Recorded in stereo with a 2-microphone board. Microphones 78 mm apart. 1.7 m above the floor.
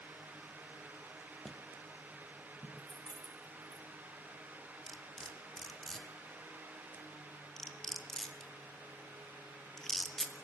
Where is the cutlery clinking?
5° left (ahead or behind), 2 m.